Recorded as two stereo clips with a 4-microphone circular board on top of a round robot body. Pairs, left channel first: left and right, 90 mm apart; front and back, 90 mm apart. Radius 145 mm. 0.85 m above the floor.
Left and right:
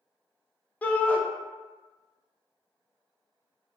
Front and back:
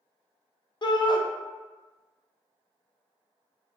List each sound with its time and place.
0.8 s a shout: 20° left, 0.6 m